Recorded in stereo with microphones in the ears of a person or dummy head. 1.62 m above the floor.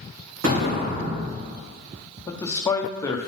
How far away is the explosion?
About 2.5 m.